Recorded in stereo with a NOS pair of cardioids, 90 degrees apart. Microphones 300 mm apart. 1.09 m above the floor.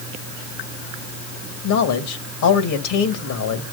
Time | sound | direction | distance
1.6 | a man speaking | 70° left | 1.8 m